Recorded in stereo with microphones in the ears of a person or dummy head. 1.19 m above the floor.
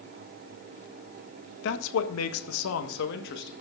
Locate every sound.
1.6 s a man speaking: 65° left (ahead or behind), 1.0 m; by 3.5 s 60° left (ahead or behind), 1.5 m